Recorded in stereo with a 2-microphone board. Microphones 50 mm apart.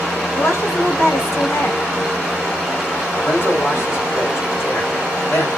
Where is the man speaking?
50° left (ahead or behind), 2.5 m.